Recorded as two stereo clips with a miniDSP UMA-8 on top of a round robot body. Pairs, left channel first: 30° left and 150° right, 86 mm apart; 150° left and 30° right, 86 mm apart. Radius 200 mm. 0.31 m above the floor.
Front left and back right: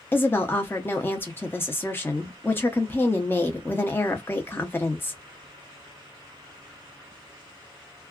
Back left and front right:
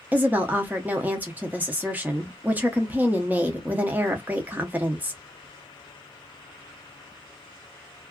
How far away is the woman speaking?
About 0.9 m.